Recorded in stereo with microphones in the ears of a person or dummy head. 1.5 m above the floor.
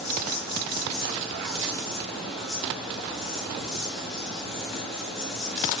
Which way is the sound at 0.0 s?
Centre (ahead or behind).